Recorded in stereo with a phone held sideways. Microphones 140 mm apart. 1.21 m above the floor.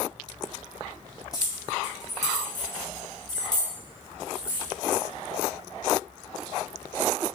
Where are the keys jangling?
25° left (ahead or behind), 4 m; by 5.0 s 30° left (ahead or behind), 6.5 m.